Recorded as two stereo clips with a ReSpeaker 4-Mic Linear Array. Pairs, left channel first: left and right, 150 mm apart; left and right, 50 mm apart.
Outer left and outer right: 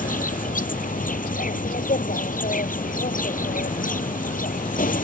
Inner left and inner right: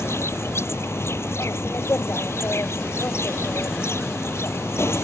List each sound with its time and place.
0.0 s an insect: 70° left (ahead or behind)